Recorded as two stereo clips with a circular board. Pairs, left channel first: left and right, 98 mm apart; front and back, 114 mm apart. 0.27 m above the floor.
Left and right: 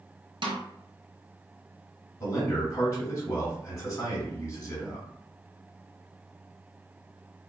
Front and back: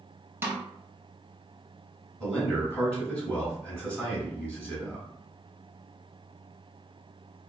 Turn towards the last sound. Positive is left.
turn(degrees=80)